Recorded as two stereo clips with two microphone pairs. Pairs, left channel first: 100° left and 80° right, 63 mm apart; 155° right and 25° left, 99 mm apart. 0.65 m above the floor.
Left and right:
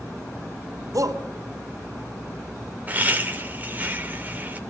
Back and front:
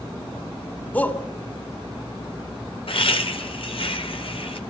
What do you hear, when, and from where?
0.9 s a shout: 80° right, 2.5 m
2.9 s laughter: 140° right, 3 m